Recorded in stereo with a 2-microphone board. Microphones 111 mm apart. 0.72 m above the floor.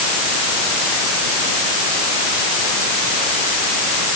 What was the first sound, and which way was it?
Only background noise.